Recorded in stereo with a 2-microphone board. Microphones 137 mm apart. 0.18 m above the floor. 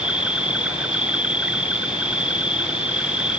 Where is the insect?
10° right (ahead or behind).